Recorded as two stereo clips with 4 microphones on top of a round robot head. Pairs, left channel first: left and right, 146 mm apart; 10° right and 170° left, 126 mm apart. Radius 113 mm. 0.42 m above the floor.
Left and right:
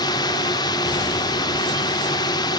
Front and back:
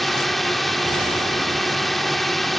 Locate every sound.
0.0 s a drone: 80° left